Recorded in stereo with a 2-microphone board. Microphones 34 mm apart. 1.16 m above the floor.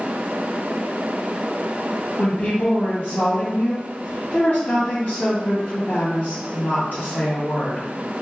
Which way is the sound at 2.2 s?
60° left (ahead or behind).